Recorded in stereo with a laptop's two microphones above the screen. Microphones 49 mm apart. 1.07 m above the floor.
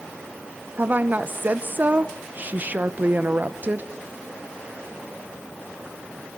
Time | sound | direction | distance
0.8 | a woman speaking | 35° right (ahead or behind) | 0.8 m